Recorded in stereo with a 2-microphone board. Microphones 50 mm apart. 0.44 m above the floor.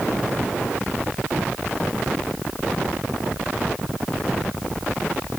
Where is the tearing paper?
I don't hear tearing paper.